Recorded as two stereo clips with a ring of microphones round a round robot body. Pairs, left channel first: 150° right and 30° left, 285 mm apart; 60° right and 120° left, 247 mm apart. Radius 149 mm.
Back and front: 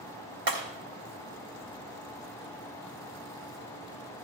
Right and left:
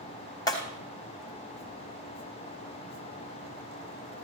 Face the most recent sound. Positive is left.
turn(degrees=15)